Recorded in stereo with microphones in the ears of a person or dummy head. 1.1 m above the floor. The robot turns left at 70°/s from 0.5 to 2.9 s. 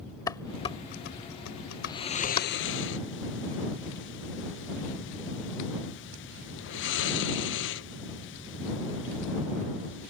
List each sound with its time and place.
0.3 s dishes clattering: 15° left (ahead or behind); by 2.5 s 25° left (ahead or behind)
1.8 s snoring: 15° left (ahead or behind); by 10.1 s 55° left (ahead or behind)